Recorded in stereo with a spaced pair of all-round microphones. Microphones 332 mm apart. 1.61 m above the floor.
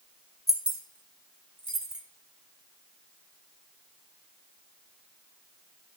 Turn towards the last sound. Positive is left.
turn(degrees=-50)  # may be behind; listen again after turning